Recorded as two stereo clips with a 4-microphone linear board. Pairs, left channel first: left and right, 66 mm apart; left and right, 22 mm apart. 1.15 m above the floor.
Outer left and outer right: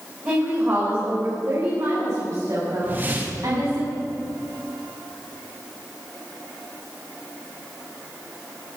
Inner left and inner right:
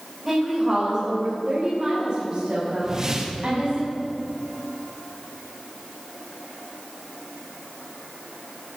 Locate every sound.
0.2 s a woman speaking: 30° right (ahead or behind), 4.5 m; by 3.8 s 65° right (ahead or behind), 6.5 m
2.8 s a whoosh: 30° right (ahead or behind), 1.6 m